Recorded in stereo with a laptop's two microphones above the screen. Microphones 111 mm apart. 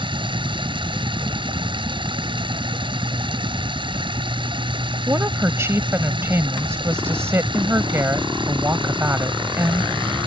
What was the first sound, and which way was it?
Running water, 50° right (ahead or behind).